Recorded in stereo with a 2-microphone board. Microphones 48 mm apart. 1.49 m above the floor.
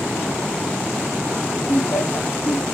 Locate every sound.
1.7 s laughter: 60° left (ahead or behind), 2.5 m